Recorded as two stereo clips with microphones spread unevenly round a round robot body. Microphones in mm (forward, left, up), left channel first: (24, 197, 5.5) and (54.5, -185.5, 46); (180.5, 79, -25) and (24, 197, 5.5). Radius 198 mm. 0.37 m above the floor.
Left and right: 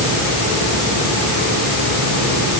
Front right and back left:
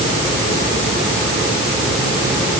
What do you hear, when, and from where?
Only background noise.